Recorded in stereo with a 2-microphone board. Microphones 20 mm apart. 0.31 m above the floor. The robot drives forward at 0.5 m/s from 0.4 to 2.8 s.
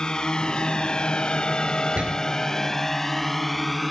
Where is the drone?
30° left (ahead or behind); by 3.9 s 10° left (ahead or behind).